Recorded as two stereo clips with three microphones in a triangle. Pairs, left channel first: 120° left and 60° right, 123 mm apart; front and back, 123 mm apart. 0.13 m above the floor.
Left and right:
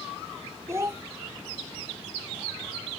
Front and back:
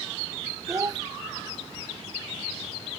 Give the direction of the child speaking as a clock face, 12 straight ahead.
4 o'clock.